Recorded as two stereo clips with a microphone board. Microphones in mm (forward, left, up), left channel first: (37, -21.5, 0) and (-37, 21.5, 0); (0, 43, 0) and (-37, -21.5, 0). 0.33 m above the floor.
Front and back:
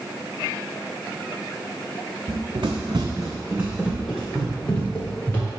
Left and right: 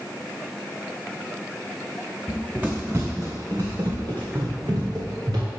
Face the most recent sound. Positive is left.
turn(degrees=-100)